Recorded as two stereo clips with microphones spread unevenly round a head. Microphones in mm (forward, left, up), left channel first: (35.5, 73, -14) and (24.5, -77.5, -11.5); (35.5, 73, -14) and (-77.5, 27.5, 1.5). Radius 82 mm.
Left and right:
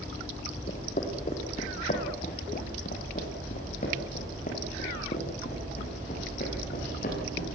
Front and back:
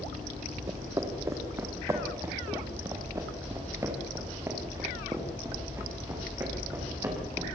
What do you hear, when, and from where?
0.7 s footsteps: 140° left, 4 m; by 7.5 s 135° left, 11.5 m